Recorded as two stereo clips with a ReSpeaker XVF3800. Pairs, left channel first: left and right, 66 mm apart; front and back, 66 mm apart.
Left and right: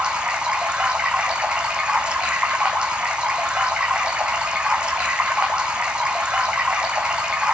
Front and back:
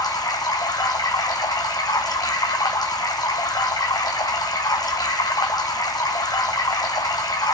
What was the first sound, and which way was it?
Running water, 10° right.